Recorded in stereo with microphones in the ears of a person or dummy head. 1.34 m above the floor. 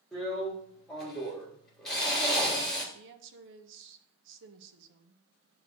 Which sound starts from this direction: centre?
A drill, at 0.1 s.